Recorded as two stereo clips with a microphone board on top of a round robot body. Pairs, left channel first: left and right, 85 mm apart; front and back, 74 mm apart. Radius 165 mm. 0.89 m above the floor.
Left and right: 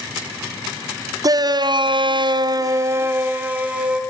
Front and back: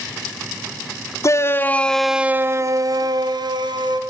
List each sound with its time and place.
1.2 s a shout: 50° right, 1.8 m; by 4.0 s 170° right, 3 m